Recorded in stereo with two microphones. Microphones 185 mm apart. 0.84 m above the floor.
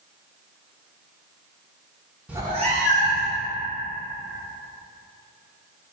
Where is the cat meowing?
5° right (ahead or behind), 0.6 m; by 3.4 s 60° right (ahead or behind), 1.6 m.